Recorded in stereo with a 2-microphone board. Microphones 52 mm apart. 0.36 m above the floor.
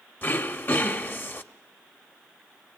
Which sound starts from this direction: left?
Throat clearing, at 0.2 s.